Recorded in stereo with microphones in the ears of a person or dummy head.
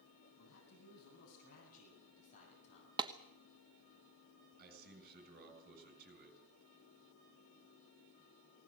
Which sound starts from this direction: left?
A man speaking, at 0.4 s.